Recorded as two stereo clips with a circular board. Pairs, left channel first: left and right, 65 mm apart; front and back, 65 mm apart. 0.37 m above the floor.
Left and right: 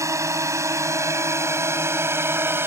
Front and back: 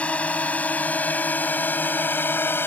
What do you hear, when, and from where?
0.0 s a drone: 65° right; by 2.7 s 45° right